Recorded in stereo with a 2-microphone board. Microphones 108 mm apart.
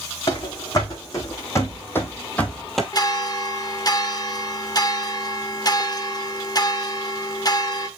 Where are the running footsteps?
35° left (ahead or behind), 2 m; by 2.8 s centre (ahead or behind), 0.8 m.